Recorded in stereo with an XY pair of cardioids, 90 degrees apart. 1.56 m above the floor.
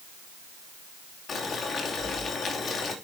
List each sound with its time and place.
1.3 s boiling: 65° left, 3 m